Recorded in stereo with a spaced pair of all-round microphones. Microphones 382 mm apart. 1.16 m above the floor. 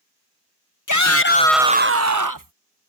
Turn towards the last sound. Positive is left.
turn(degrees=-60)  # may be behind; listen again after turning